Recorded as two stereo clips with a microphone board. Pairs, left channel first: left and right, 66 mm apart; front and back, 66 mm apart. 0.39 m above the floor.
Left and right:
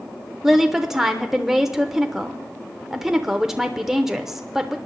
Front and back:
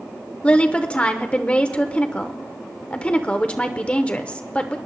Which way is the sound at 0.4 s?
20° right.